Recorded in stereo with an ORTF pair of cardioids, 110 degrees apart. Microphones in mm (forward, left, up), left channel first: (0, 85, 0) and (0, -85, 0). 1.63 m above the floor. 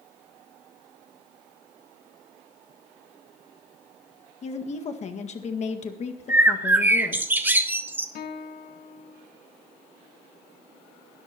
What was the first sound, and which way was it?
A woman speaking, 45° left.